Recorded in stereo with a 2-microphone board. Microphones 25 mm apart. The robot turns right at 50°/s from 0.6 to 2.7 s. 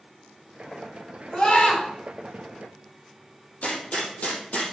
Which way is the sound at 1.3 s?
30° left (ahead or behind).